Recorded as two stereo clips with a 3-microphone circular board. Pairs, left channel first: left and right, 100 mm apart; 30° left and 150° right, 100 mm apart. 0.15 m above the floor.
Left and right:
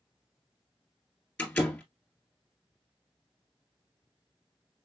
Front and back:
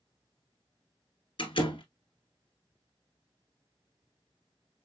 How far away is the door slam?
About 2 m.